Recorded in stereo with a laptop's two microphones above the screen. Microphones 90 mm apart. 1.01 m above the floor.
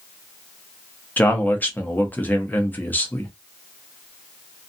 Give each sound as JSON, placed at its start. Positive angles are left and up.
{"t": 1.2, "sound": "a man speaking", "side_deg": 20, "distance_m": 0.7}